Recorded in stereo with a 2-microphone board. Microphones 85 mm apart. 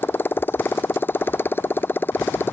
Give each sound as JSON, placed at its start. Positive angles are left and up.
{"t": 0.0, "sound": "a motorcycle", "side_deg": 25}